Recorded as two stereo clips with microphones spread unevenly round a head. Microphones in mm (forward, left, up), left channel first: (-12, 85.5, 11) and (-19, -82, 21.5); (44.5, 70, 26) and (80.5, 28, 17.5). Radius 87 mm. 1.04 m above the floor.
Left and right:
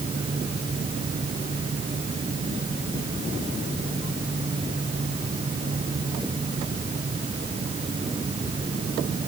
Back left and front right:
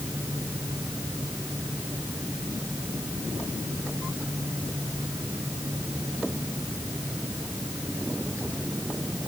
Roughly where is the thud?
I don't hear a thud.